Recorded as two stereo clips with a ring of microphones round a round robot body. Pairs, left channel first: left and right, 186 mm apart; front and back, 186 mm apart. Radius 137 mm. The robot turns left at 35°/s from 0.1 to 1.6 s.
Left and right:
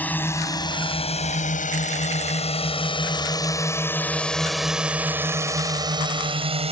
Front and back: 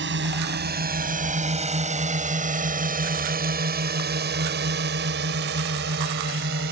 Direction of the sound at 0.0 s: 170° left.